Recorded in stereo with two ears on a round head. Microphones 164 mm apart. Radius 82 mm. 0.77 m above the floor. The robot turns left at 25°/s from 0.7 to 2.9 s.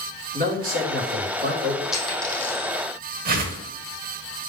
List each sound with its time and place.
0.3 s a man speaking: 50° right (ahead or behind), 2 m; by 1.8 s 70° right (ahead or behind), 2 m
1.9 s a dropped coin: centre (ahead or behind), 4 m; by 2.7 s 20° left (ahead or behind), 4 m
3.2 s a whoosh: 50° right (ahead or behind), 1.1 m